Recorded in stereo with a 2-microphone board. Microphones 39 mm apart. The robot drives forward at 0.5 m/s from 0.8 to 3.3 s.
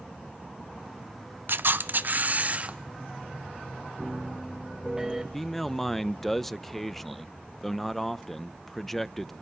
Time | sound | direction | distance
1.5 | a camera shutter | 65° right (ahead or behind) | 0.7 m
4.0 | a piano | 15° right (ahead or behind) | 1.5 m
5.3 | a man speaking | centre (ahead or behind) | 0.5 m